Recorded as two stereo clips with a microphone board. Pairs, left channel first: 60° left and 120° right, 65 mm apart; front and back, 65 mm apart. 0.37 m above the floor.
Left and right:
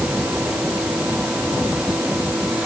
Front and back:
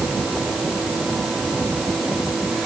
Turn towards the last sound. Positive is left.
No sound to turn to.